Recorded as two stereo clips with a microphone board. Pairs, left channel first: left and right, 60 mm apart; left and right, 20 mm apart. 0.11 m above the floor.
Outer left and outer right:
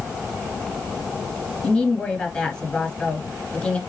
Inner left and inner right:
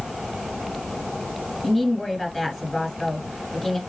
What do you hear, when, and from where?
1.6 s a woman speaking: 15° left (ahead or behind), 1.7 m